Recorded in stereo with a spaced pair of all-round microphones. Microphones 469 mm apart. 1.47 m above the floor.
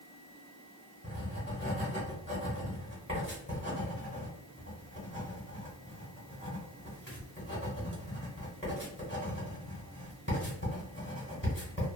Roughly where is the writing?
Left.